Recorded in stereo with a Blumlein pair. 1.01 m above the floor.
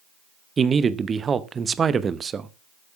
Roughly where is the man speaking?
Ahead.